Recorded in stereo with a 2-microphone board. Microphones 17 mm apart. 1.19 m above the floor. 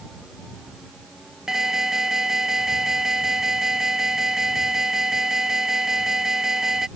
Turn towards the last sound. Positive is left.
turn(degrees=-30)  # may be behind; listen again after turning